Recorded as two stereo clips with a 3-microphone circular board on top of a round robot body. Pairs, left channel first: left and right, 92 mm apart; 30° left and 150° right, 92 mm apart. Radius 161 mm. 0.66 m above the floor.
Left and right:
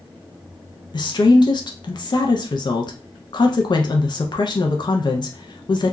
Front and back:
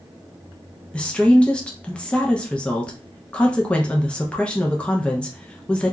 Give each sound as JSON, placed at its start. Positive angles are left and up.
{"t": 0.9, "sound": "a woman speaking", "azimuth_deg": 105, "distance_m": 0.7}